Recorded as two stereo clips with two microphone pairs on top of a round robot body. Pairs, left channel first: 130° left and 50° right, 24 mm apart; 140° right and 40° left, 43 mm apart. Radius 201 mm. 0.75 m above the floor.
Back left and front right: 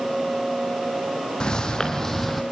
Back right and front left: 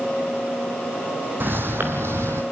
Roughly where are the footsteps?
Left.